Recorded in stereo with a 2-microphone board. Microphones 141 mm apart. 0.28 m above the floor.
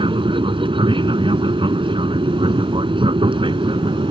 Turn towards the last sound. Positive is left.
turn(degrees=-35)  # may be behind; listen again after turning